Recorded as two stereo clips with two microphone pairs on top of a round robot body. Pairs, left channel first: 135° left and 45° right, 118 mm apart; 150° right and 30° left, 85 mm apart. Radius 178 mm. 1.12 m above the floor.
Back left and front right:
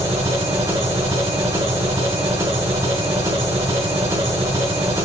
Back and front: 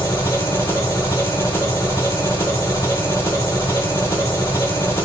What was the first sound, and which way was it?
An engine running, 100° right.